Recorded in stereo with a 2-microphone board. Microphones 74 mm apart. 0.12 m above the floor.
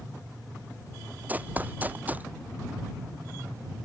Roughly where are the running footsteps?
Right.